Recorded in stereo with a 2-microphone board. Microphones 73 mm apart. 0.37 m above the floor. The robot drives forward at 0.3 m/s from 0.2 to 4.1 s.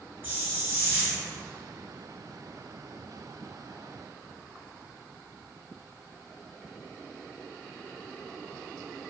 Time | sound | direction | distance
0.2 | a hiss | 30° right (ahead or behind) | 1.5 m